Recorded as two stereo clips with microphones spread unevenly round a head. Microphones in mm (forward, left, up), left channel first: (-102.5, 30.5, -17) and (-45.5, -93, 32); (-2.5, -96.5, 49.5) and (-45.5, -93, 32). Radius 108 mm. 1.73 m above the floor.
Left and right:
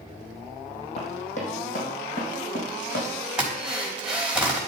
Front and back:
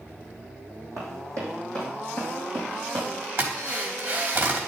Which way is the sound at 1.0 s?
165° left.